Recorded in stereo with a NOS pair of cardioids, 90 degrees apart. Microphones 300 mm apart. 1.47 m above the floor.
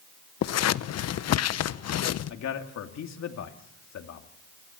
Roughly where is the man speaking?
Ahead left.